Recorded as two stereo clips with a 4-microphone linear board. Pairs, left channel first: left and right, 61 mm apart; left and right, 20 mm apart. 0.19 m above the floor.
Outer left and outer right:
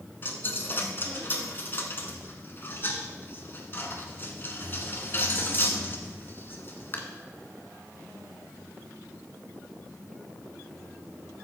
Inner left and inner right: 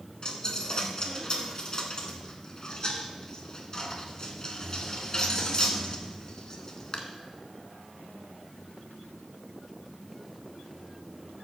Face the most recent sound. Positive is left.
turn(degrees=40)  # may be behind; listen again after turning